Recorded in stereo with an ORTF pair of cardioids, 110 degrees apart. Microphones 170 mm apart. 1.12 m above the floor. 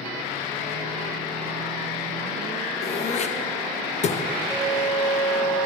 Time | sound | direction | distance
2.8 | throat clearing | 40° left | 0.7 m
4.5 | a flute | 10° right | 1.1 m